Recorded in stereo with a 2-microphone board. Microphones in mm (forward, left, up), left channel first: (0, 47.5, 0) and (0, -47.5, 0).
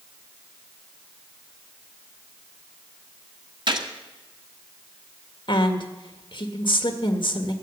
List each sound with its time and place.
3.7 s a gunshot: 55° right (ahead or behind), 1.5 m
5.5 s a woman speaking: 60° left (ahead or behind), 1.7 m